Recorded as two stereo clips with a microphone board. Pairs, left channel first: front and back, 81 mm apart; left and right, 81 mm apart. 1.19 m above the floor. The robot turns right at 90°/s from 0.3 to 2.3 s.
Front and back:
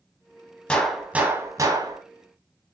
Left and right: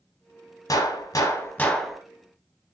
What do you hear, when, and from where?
0.7 s a gunshot: 75° left, 0.9 m; by 2.0 s 165° right, 0.9 m